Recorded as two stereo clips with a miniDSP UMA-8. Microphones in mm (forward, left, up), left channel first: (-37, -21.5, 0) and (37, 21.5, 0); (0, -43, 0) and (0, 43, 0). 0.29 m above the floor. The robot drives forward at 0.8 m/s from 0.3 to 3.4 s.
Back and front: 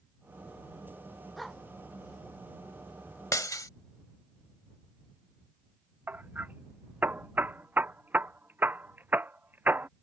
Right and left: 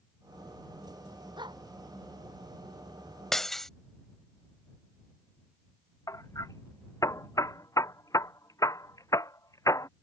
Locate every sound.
1.4 s a dog barking: 120° left
3.3 s breaking glass: 170° right; by 3.7 s 175° right
6.1 s hammering: 40° right